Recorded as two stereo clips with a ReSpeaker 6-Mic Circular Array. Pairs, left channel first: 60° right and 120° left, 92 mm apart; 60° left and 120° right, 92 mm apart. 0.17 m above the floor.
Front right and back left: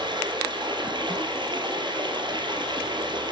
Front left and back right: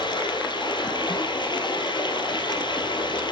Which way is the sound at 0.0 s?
90° left.